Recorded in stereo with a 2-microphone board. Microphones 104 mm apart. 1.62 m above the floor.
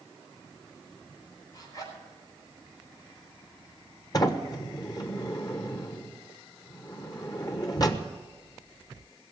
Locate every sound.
1.5 s a zipper: 35° left (ahead or behind), 5.5 m
4.1 s a sliding door: 40° left (ahead or behind), 1.2 m